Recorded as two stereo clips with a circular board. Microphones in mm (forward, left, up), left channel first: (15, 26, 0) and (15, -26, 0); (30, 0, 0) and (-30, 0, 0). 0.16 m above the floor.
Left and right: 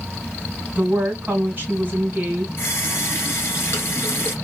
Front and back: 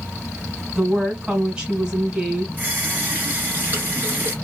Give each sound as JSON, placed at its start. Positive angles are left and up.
{"t": 0.8, "sound": "a woman speaking", "azimuth_deg": -115, "distance_m": 1.8}
{"t": 2.6, "sound": "a running tap", "azimuth_deg": 125, "distance_m": 1.6}